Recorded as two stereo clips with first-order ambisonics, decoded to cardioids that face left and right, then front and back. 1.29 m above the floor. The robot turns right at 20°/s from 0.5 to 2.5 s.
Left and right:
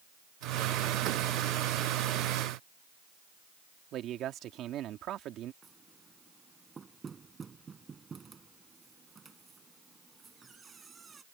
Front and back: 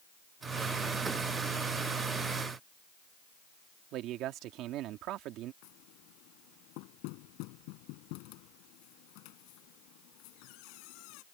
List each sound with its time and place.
3.9 s a man speaking: 140° right
5.6 s knocking: 15° right